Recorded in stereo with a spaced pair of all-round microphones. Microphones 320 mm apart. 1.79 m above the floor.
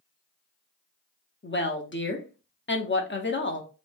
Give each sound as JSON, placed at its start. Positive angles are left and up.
{"t": 1.4, "sound": "a woman speaking", "side_deg": 35, "distance_m": 0.6}